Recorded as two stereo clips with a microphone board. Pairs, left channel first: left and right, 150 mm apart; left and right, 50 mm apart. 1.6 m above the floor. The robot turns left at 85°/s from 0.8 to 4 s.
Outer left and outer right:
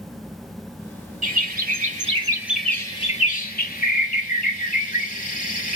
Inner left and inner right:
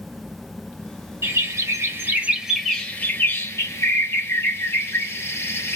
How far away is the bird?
About 1.4 m.